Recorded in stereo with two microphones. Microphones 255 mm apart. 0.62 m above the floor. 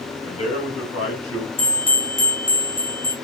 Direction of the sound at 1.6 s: 50° left (ahead or behind).